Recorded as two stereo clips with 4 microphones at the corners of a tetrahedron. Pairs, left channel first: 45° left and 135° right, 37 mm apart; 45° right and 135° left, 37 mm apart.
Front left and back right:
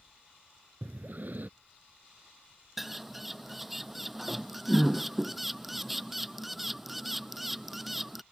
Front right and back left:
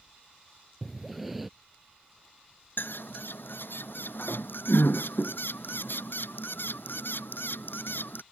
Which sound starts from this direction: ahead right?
A bird, at 2.8 s.